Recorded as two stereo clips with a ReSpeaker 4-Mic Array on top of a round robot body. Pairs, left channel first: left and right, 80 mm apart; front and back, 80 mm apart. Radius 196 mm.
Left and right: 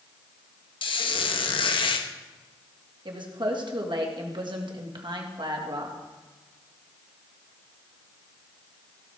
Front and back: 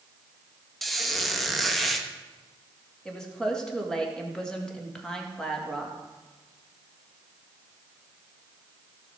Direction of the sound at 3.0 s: 80° right.